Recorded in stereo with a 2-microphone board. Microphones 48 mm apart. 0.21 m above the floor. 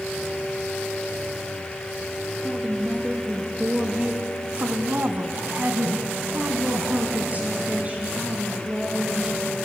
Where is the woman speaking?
5° right (ahead or behind), 3.5 m; by 9.7 s 25° right (ahead or behind), 5.5 m.